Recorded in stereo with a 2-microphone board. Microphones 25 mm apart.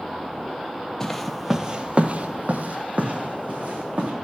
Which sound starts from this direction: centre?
Footsteps, at 1.0 s.